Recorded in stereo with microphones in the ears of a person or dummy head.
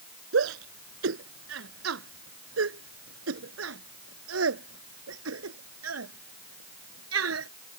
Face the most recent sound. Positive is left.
turn(degrees=-80)